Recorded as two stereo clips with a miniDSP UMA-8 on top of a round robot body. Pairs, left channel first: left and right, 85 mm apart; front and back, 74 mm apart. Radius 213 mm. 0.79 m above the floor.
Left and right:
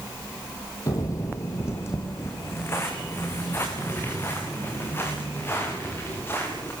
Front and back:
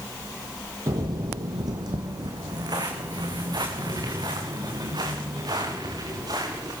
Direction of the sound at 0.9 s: 140° left.